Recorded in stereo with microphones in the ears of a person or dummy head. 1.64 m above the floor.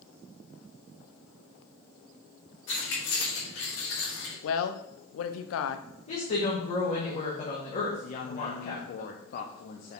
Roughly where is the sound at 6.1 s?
Left.